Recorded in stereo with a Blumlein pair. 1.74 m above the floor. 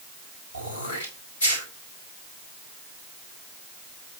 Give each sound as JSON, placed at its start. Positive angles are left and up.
{"t": 0.5, "sound": "throat clearing", "azimuth_deg": 70, "distance_m": 3.5}